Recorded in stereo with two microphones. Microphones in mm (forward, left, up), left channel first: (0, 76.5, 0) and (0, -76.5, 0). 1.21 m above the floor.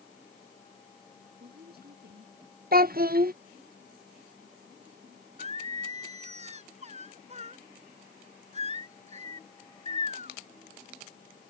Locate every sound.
1.4 s a woman speaking: 80° right
2.7 s a child speaking: 70° right (ahead or behind)
5.4 s singing: 45° right (ahead or behind)